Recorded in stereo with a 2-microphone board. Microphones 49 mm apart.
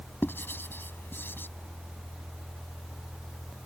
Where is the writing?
45° left (ahead or behind).